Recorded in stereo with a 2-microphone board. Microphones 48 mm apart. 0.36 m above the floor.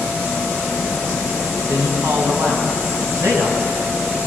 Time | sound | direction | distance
1.7 | a man speaking | 65° right (ahead or behind) | 3 m